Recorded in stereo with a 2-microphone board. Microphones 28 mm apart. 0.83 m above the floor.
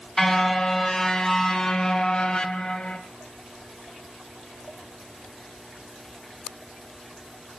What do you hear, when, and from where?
0.2 s a car horn: 15° left (ahead or behind), 4 m; by 3.0 s 40° left (ahead or behind), 2.5 m